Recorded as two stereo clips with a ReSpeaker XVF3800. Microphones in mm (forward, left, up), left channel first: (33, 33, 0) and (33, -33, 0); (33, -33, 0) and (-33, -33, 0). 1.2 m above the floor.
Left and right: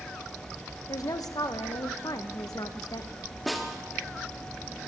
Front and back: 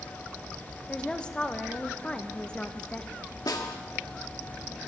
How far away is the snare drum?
About 1.8 m.